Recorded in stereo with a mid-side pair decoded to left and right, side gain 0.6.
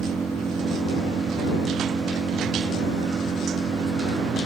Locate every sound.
0.0 s an engine running: 25° right